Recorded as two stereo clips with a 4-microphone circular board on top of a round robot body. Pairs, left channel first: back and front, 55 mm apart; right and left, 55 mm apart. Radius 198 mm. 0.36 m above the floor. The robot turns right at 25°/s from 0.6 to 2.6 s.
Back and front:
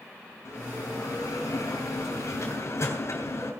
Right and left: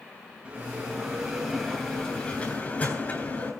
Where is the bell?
160° left, 8 m; by 3.5 s 150° right, 8 m.